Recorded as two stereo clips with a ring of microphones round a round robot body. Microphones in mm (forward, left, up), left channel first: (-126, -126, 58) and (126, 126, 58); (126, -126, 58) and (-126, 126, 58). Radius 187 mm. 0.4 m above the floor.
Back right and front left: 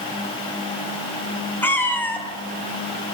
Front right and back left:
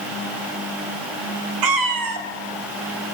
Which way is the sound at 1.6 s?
140° left.